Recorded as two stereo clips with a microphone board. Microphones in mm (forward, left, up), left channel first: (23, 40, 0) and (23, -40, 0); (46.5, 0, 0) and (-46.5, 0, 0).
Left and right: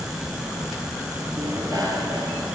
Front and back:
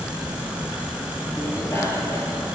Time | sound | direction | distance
1.4 | a bicycle bell | 60° right | 4 m